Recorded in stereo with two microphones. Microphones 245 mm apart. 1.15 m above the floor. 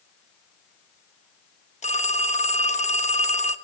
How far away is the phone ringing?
About 1.0 m.